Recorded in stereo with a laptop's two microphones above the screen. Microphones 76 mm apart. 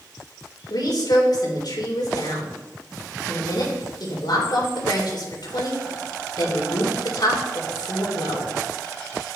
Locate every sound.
0.7 s a woman speaking: 70° left (ahead or behind), 3 m